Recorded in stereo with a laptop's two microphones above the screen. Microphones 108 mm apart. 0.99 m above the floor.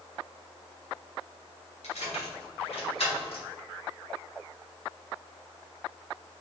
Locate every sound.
1.8 s keys jangling: 85° left, 1.3 m; by 3.4 s 60° left (ahead or behind), 2.5 m